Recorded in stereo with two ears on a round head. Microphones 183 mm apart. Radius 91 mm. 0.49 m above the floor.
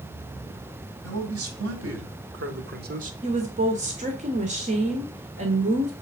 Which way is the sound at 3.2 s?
35° right (ahead or behind).